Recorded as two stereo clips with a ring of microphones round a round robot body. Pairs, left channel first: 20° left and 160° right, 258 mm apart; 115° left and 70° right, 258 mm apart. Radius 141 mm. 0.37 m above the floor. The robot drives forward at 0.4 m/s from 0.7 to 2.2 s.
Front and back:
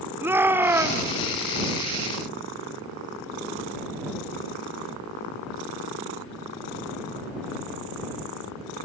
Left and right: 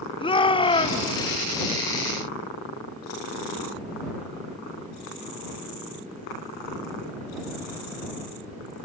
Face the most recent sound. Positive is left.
turn(degrees=160)